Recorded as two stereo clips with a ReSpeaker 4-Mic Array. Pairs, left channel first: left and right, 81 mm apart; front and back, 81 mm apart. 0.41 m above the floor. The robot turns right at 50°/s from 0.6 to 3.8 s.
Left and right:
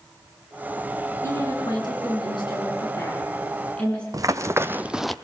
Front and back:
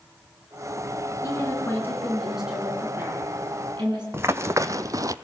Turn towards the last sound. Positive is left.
turn(degrees=175)